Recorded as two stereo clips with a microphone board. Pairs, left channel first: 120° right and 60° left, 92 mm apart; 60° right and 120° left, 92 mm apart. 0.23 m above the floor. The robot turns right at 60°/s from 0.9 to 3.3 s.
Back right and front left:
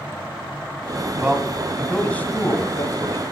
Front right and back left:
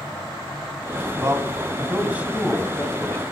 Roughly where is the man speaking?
Behind left.